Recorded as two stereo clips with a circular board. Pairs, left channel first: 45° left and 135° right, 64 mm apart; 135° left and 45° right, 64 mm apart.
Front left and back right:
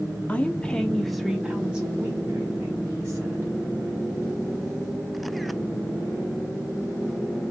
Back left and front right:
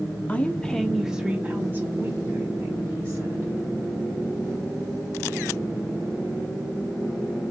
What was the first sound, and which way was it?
A woman speaking, 90° left.